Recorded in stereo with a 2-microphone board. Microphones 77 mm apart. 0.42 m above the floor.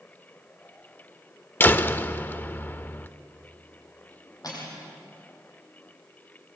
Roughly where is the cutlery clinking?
Left.